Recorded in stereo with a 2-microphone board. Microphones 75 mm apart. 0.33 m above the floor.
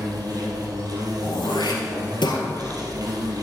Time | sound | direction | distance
0.0 | an insect | 60° right (ahead or behind) | 2 m
1.2 | throat clearing | 85° left | 2 m